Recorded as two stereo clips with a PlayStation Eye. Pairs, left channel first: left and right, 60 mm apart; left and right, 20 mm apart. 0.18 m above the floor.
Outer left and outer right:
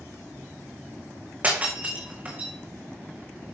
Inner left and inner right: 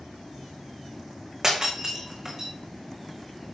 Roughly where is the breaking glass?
Right.